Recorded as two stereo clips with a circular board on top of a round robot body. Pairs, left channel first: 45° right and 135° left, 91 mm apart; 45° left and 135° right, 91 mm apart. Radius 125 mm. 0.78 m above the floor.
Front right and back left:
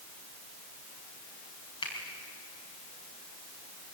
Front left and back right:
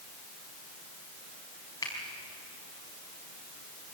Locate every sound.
1.8 s a finger snap: 10° right, 5 m